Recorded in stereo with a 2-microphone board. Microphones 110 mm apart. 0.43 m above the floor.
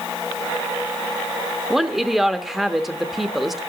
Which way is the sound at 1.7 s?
5° right (ahead or behind).